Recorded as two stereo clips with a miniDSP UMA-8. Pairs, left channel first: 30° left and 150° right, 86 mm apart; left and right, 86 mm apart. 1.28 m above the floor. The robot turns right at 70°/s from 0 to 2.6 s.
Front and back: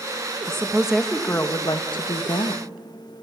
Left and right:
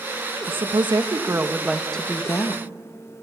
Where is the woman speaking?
95° right, 1.5 m; by 2.6 s 55° left, 1.5 m.